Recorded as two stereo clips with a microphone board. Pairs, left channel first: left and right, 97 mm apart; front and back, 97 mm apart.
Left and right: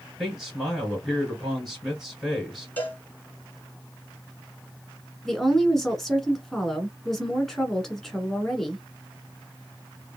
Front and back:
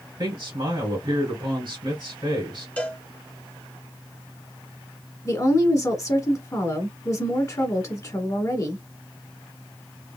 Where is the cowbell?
50° left, 0.9 m.